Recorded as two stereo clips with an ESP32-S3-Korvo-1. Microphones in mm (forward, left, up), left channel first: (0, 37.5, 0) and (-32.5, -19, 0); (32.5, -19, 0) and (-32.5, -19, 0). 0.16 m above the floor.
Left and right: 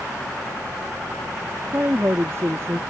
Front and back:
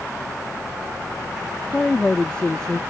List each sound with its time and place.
1.7 s a woman speaking: 75° right; by 2.8 s 80° right